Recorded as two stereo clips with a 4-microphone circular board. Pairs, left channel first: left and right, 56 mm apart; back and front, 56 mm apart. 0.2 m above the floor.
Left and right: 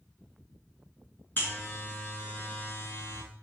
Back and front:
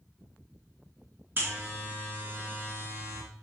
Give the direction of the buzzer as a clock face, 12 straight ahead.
11 o'clock.